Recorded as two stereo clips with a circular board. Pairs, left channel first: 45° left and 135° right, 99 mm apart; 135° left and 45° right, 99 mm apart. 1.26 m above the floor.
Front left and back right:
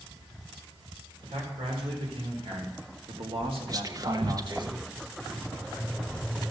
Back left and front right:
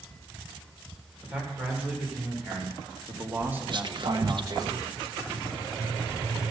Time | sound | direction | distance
1.2 | a man speaking | 125° right | 4.5 m
3.7 | whispering | 85° right | 0.9 m